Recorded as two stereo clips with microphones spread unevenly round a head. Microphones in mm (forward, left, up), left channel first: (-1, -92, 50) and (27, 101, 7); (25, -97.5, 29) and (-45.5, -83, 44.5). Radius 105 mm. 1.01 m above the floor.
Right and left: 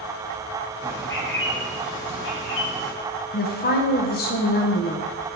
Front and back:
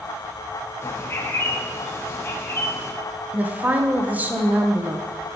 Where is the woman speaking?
120° right, 0.9 m.